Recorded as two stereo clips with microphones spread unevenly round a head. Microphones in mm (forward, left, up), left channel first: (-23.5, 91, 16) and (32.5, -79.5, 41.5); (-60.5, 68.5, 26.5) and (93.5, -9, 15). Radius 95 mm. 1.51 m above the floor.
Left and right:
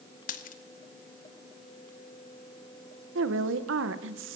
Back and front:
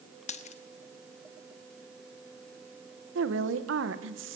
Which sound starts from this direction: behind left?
A dropped coin, at 0.3 s.